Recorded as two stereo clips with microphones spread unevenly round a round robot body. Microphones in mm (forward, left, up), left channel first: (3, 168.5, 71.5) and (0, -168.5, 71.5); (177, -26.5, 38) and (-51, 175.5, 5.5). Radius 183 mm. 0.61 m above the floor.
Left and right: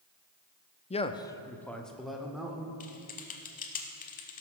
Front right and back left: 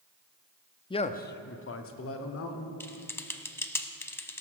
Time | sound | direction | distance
0.9 | a man speaking | 35° left | 0.6 m
2.8 | typing on a keyboard | 30° left | 0.6 m